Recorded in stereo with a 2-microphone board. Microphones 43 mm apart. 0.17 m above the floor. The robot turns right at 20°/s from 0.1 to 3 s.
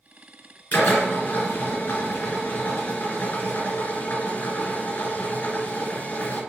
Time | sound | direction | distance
0.7 | a drill | 55° left | 2.5 m